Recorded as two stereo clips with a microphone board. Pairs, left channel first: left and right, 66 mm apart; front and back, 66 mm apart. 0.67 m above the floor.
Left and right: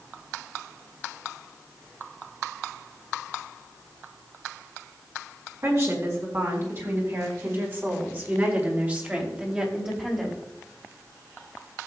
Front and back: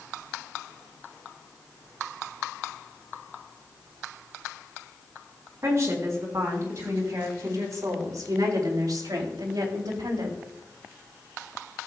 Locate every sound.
5.6 s a woman speaking: 130° right, 4.5 m; by 10.4 s 175° right, 2.5 m